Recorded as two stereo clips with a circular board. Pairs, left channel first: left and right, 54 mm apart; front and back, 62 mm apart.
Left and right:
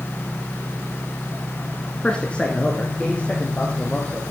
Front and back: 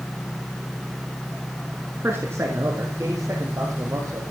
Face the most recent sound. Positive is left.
turn(degrees=150)